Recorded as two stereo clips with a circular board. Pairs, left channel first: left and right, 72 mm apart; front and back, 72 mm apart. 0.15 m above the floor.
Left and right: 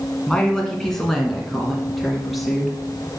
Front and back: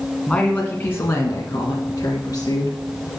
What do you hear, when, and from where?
0.3 s a woman speaking: 35° left, 1.3 m; by 2.8 s 5° right, 2.5 m